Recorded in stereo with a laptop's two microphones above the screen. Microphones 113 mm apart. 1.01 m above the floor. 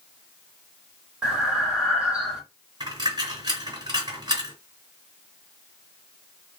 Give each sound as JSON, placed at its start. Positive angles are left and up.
{"t": 1.2, "sound": "breathing", "side_deg": -5, "distance_m": 1.7}
{"t": 2.8, "sound": "a dropped coin", "side_deg": -40, "distance_m": 2.5}